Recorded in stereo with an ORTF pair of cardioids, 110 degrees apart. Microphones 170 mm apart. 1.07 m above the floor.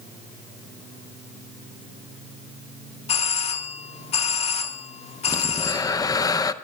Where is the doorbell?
40° left, 1.6 m.